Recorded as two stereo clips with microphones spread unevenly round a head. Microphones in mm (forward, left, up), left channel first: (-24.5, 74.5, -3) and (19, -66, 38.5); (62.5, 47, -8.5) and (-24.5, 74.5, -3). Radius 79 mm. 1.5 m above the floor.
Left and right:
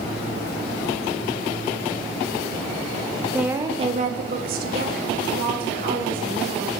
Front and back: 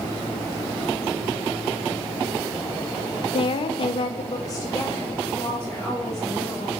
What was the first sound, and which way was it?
A woman speaking, straight ahead.